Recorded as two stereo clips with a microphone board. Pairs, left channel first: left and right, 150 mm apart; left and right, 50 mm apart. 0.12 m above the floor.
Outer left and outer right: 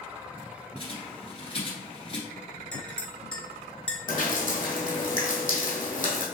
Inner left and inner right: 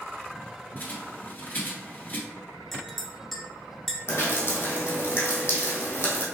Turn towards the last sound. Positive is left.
turn(degrees=65)  # may be behind; listen again after turning